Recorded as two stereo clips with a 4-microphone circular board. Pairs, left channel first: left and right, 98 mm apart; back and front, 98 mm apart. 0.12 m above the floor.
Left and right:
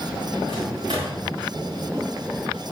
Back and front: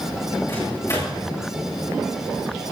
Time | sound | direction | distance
0.5 | a microwave | 125° right | 7.5 m